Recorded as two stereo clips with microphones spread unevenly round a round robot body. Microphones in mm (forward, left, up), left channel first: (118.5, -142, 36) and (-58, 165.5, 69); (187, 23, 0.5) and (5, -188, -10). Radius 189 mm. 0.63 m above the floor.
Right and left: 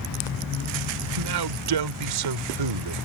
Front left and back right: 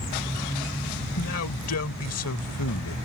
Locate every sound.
1.0 s a man speaking: 100° left